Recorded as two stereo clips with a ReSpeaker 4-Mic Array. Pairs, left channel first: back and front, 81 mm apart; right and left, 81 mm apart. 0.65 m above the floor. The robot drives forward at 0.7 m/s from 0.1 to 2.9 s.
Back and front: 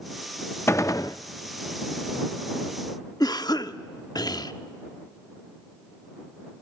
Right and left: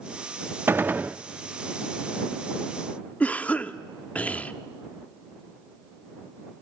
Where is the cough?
160° right, 0.9 m.